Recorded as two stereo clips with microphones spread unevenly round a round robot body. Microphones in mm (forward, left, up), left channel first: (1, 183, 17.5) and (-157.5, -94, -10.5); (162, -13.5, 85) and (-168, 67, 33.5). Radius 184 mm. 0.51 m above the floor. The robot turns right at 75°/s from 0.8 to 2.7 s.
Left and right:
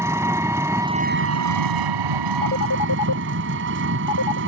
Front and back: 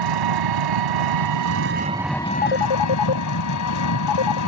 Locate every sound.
0.0 s an engine running: 160° left; by 4.5 s 60° right
2.4 s a phone ringing: 15° right; by 4.4 s 10° left